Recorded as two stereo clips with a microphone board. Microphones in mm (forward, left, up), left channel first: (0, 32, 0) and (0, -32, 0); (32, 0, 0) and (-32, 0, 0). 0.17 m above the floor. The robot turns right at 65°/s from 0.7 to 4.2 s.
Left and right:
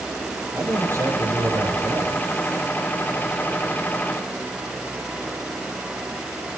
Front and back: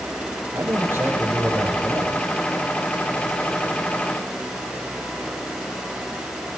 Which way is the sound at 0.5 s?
140° right.